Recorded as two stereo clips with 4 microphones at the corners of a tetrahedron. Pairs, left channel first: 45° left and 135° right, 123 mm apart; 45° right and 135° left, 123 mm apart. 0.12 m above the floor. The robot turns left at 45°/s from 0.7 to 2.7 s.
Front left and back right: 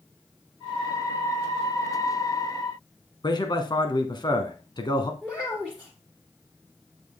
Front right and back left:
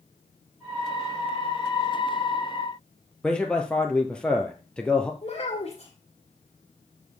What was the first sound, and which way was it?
A man speaking, 30° left.